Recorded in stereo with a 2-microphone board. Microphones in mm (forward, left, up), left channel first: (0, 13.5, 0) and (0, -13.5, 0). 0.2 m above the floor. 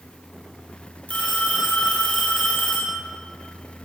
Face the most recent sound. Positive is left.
turn(degrees=60)  # may be behind; listen again after turning